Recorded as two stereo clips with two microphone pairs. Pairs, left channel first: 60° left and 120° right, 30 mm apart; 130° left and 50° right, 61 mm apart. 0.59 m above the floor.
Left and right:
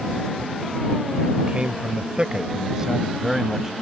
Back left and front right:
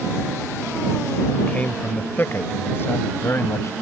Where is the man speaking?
165° right; by 3.7 s 165° left.